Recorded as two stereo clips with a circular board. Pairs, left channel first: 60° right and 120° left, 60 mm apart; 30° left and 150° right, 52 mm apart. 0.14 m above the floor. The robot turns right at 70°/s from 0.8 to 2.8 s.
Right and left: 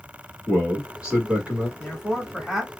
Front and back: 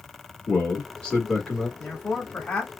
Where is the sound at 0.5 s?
60° left, 1.3 m; by 1.7 s 125° left, 1.3 m.